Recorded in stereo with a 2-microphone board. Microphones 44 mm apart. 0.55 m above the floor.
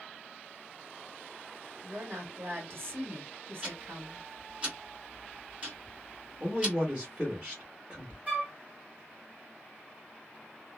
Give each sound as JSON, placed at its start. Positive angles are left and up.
{"t": 1.8, "sound": "a woman speaking", "side_deg": -55, "distance_m": 1.7}
{"t": 3.6, "sound": "ticking", "side_deg": -25, "distance_m": 1.4}
{"t": 6.4, "sound": "a man speaking", "side_deg": -30, "distance_m": 1.3}
{"t": 8.3, "sound": "a flute", "side_deg": -30, "distance_m": 1.6}